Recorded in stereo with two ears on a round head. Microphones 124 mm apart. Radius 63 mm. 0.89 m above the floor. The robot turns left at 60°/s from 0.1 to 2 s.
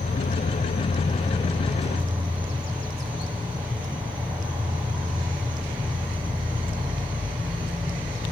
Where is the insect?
105° left, 6 m; by 8.3 s 10° right, 6 m.